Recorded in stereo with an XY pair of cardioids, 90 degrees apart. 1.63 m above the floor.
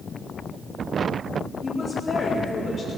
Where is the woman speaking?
45° left, 4 m.